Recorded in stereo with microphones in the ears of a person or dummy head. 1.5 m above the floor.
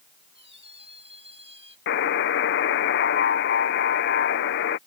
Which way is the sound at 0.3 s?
30° right (ahead or behind).